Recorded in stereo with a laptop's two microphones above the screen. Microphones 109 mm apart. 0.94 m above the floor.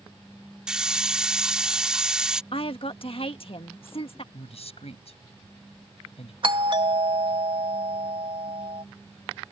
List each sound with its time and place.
0.7 s a hiss: 5° right (ahead or behind)
2.5 s a woman speaking: 60° left (ahead or behind)
4.3 s a man speaking: 70° left (ahead or behind)
6.4 s a doorbell: 50° right (ahead or behind)